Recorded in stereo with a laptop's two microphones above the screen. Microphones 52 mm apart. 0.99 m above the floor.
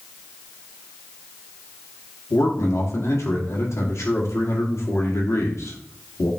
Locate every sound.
2.3 s a man speaking: 70° left (ahead or behind), 1.9 m